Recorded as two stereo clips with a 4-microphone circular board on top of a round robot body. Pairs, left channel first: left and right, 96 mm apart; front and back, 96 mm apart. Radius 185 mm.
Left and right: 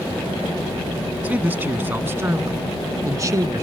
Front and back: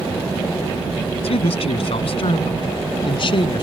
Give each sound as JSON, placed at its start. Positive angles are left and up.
{"t": 1.2, "sound": "a man speaking", "azimuth_deg": -15}